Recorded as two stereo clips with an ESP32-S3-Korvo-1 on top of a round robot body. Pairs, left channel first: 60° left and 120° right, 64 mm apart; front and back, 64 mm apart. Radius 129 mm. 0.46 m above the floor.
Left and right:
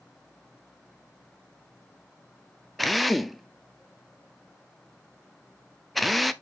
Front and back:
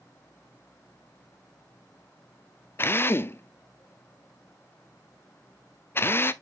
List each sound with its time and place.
2.8 s a drill: 30° right, 0.8 m